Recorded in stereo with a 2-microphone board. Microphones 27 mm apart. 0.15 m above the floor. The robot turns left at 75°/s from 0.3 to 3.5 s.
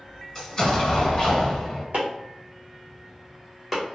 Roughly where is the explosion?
Behind left.